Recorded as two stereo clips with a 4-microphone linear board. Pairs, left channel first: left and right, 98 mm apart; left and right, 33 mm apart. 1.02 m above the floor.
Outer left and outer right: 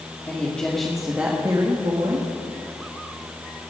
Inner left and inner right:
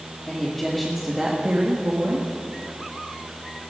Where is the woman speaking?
20° left (ahead or behind), 2.5 m; by 2.3 s 70° right (ahead or behind), 2 m.